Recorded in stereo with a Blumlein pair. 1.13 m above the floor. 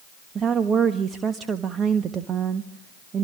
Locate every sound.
0.3 s a woman speaking: 20° right, 1.3 m